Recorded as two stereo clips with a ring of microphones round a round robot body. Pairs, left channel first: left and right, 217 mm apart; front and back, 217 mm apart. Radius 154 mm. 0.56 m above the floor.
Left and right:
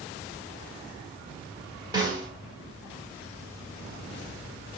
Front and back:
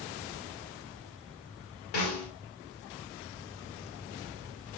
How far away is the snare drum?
About 1.6 m.